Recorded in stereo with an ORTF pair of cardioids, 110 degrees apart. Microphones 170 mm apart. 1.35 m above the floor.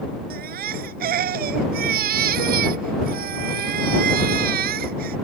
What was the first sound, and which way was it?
A baby crying, 65° right.